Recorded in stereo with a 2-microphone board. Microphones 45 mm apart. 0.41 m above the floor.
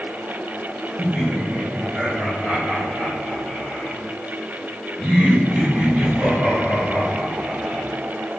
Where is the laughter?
5° right (ahead or behind), 1.4 m.